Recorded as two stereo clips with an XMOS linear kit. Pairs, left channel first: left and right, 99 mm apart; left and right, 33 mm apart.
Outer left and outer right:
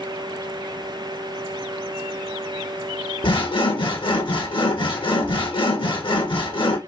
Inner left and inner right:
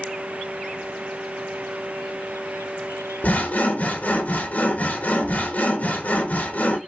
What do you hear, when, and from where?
3.2 s sawing: 60° left (ahead or behind), 1.2 m